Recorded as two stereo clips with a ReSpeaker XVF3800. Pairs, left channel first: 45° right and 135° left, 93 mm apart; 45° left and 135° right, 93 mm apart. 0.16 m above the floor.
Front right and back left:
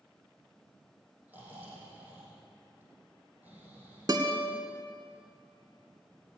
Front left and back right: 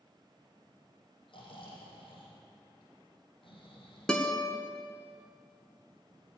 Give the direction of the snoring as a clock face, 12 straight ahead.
10 o'clock.